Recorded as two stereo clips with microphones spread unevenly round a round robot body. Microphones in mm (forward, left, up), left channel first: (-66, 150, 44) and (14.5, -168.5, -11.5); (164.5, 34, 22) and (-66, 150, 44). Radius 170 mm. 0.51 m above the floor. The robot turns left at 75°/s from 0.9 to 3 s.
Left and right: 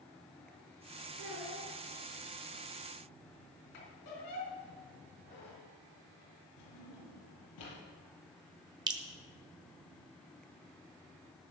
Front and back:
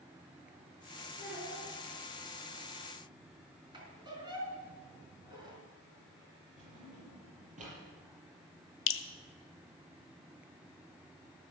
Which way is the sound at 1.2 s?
115° right.